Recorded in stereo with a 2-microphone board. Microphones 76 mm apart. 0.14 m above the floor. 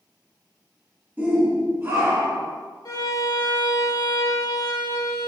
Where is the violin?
55° left (ahead or behind), 1.5 m.